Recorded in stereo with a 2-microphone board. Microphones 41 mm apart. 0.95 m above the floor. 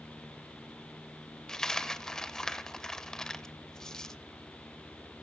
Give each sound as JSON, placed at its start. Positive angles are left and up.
{"t": 1.5, "sound": "a dropped coin", "side_deg": 15, "distance_m": 0.7}